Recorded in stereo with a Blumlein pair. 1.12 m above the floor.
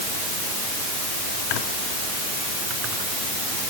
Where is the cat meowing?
No cat meowing in this recording.